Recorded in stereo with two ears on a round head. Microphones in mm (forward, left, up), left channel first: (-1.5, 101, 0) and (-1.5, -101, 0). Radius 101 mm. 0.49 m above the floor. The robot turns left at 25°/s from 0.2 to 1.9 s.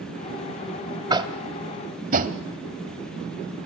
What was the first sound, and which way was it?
Tapping, 20° right (ahead or behind).